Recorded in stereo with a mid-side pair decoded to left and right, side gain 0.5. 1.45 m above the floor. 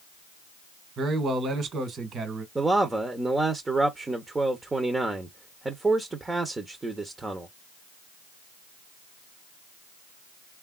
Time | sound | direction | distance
1.0 | a man speaking | 50° right | 1.5 m
2.5 | a man speaking | 20° right | 0.9 m